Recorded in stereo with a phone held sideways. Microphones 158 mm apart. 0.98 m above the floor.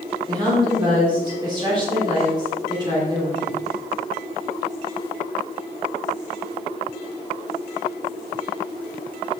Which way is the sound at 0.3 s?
25° right (ahead or behind).